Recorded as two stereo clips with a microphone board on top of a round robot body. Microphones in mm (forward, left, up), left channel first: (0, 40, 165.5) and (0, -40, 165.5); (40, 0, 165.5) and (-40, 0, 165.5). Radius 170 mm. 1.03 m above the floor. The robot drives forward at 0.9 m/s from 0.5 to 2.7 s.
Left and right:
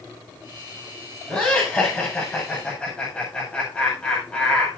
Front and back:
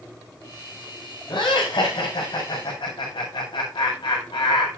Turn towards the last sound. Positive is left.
turn(degrees=15)